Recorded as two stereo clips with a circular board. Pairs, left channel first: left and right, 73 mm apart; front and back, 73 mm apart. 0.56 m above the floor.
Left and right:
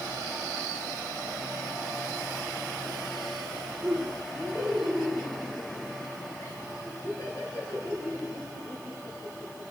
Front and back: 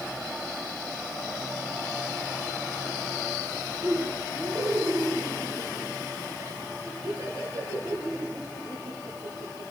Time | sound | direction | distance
3.8 | laughter | 140° left | 6 m